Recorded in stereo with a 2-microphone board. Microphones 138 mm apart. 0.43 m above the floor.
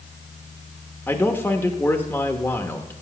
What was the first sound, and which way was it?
A man speaking, 15° left (ahead or behind).